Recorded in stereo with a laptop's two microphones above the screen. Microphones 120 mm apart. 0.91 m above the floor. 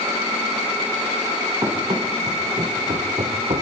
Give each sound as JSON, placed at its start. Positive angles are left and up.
{"t": 1.6, "sound": "running footsteps", "side_deg": -35, "distance_m": 4.5}